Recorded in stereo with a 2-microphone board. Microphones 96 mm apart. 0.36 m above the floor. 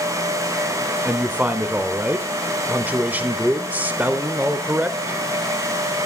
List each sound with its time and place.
1.1 s a man speaking: 15° right (ahead or behind), 0.8 m